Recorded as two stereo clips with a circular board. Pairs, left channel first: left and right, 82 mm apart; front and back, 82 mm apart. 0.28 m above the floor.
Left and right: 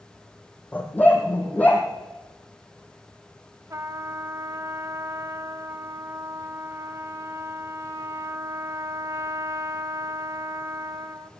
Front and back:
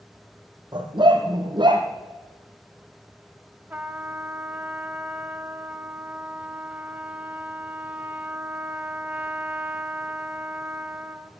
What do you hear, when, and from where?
0.7 s a dog barking: 160° left, 2.5 m
3.7 s a trumpet: 120° right, 0.6 m